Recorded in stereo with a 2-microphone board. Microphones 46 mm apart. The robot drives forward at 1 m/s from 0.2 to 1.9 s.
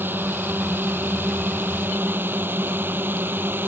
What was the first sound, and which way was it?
A drone, 50° right (ahead or behind).